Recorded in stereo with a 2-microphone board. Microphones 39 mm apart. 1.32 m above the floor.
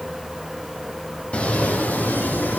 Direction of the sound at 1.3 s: 30° left (ahead or behind).